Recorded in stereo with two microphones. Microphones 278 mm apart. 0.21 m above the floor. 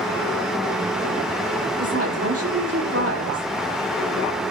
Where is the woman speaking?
55° right (ahead or behind), 6.5 m.